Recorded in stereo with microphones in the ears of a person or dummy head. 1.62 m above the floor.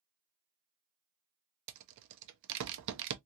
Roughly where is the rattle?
Right.